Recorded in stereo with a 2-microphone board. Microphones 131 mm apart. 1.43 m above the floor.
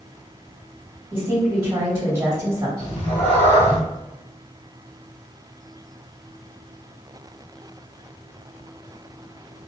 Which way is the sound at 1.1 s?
25° right (ahead or behind).